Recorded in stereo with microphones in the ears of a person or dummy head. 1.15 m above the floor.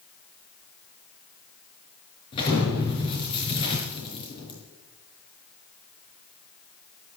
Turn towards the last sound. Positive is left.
turn(degrees=35)  # may be behind; listen again after turning